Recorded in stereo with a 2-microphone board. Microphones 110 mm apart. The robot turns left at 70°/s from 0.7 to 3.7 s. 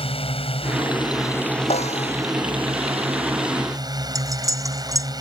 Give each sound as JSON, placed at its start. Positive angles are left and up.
{"t": 0.0, "sound": "a drone", "azimuth_deg": 70}
{"t": 1.7, "sound": "a snare drum", "azimuth_deg": 110}
{"t": 4.2, "sound": "cutlery clinking", "side_deg": -30}